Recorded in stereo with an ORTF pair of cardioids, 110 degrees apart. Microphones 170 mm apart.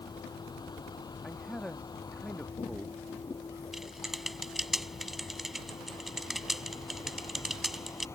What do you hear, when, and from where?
0.0 s a vehicle: 25° left; by 8.2 s 15° left
1.2 s a man speaking: 5° left
3.7 s typing on a keyboard: straight ahead